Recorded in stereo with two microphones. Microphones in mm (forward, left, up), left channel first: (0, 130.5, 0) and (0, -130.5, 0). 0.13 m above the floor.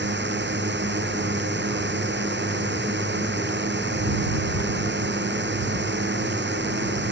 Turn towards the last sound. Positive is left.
turn(degrees=-40)  # may be behind; listen again after turning